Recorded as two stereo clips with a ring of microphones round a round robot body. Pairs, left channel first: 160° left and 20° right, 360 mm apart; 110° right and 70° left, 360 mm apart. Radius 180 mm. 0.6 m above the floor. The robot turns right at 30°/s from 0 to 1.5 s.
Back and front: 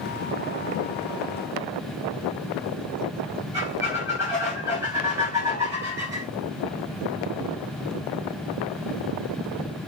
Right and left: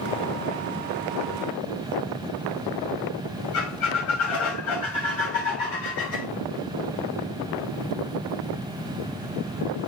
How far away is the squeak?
About 2 m.